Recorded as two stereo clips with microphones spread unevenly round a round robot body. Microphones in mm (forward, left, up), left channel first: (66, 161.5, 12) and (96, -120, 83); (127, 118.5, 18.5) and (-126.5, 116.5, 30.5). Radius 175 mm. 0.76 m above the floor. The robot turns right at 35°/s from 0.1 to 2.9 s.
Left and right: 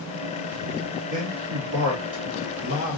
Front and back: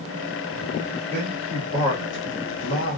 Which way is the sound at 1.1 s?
80° right.